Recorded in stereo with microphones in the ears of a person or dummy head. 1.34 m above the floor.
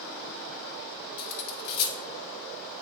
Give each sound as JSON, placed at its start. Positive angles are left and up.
{"t": 1.2, "sound": "cutlery clinking", "side_deg": 50, "distance_m": 0.7}